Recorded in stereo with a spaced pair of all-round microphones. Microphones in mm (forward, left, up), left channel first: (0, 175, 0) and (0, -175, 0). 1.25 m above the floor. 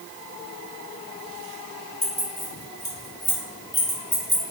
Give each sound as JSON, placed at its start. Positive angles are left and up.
{"t": 2.0, "sound": "keys jangling", "side_deg": 75, "distance_m": 1.5}